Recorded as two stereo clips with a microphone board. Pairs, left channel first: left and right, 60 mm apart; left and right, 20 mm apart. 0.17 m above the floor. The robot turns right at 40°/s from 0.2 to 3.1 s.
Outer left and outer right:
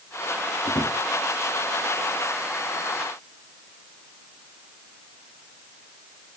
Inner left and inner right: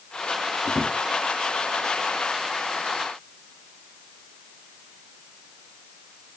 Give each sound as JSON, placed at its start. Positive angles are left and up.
{"t": 0.7, "sound": "a drawer", "side_deg": 85, "distance_m": 5.5}